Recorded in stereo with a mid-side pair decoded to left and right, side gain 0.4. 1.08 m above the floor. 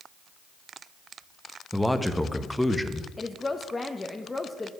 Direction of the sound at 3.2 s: 20° left.